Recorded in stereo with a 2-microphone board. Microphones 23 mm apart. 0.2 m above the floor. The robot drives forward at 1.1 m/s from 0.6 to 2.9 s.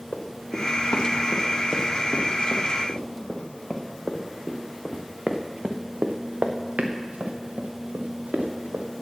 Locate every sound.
0.1 s running footsteps: 80° left, 2.5 m; by 8.8 s 90° right, 2.5 m